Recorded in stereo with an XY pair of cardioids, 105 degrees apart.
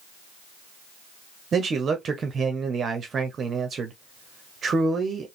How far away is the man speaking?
About 0.8 m.